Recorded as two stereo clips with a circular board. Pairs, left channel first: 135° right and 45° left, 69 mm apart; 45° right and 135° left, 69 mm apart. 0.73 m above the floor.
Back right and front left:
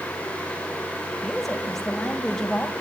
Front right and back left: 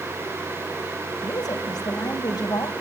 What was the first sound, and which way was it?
A woman speaking, 50° right.